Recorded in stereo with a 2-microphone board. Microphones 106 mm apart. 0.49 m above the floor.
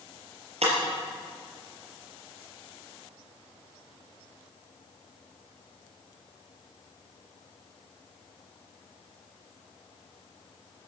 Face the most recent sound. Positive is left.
turn(degrees=-75)  # may be behind; listen again after turning